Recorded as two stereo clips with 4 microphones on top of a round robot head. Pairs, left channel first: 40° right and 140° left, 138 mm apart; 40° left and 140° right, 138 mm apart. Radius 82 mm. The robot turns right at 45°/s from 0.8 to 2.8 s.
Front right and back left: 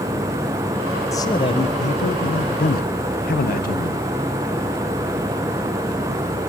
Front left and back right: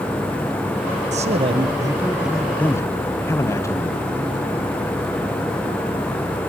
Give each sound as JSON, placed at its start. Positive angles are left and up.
{"t": 1.1, "sound": "a man speaking", "azimuth_deg": -105, "distance_m": 1.2}